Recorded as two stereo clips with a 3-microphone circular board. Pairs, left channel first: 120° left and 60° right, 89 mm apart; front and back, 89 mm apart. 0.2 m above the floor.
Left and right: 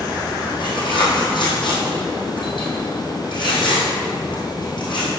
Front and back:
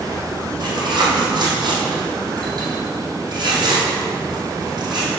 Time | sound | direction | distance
0.6 | tearing paper | 145° left | 3 m